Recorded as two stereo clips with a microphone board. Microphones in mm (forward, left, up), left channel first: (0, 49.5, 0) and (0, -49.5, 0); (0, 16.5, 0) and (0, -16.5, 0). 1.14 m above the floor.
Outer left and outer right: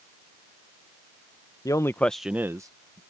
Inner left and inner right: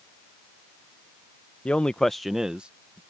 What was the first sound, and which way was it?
A man speaking, 35° left (ahead or behind).